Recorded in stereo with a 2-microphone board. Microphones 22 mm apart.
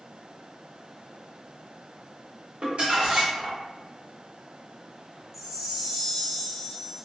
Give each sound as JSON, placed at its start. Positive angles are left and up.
{"t": 2.6, "sound": "crumpling", "side_deg": -60, "distance_m": 1.3}
{"t": 5.3, "sound": "a chime", "side_deg": -20, "distance_m": 0.8}